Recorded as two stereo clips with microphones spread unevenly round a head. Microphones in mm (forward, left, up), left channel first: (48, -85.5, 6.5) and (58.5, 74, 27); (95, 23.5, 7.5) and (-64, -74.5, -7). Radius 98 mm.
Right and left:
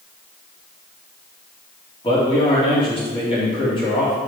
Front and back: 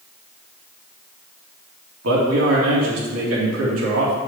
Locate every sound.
2.0 s a man speaking: 155° right, 2.5 m